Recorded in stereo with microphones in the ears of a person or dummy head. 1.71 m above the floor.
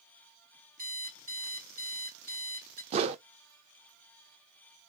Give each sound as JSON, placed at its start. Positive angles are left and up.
{"t": 0.8, "sound": "an alarm clock", "side_deg": -45, "distance_m": 2.0}
{"t": 2.9, "sound": "a whoosh", "side_deg": -35, "distance_m": 0.7}